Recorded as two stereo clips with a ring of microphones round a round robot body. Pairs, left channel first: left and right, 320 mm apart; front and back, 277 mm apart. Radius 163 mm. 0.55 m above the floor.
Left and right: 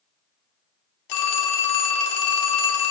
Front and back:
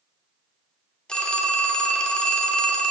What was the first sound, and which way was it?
A phone ringing, 85° left.